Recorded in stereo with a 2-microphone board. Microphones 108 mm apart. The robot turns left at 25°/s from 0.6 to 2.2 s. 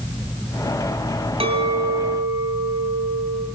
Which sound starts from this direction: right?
A clink, at 1.4 s.